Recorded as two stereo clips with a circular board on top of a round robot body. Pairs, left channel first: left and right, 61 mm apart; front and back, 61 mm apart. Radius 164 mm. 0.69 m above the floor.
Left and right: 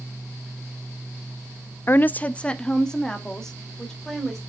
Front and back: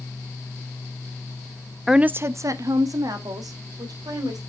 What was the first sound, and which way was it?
A woman speaking, 90° left.